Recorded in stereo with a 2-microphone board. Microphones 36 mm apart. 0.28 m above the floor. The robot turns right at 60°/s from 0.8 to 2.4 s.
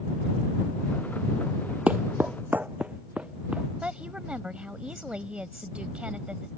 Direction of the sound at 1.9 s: 40° right (ahead or behind).